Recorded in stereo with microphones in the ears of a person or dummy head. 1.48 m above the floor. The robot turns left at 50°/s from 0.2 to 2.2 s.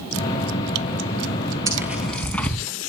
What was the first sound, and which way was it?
Tearing paper, 20° right (ahead or behind).